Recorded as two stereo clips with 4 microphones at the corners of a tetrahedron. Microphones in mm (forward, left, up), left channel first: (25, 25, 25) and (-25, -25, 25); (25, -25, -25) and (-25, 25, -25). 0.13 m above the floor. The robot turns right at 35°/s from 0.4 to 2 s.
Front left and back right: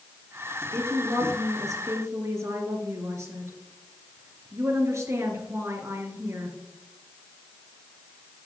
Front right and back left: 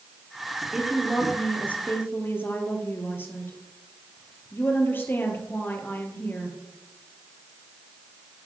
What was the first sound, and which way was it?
A woman speaking, 145° right.